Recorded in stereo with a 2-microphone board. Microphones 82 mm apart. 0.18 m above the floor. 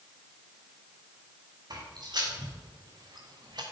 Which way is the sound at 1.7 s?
55° right (ahead or behind).